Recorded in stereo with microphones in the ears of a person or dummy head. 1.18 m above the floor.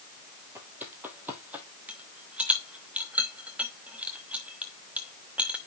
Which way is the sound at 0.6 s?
10° right (ahead or behind).